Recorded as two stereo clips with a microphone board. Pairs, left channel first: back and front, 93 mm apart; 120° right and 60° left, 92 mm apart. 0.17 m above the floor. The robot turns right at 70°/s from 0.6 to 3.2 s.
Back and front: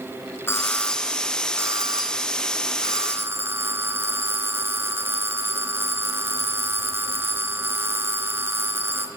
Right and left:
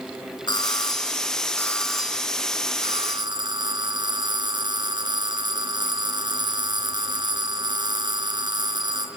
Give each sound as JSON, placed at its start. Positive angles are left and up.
{"t": 0.5, "sound": "a doorbell", "azimuth_deg": -125, "distance_m": 3.5}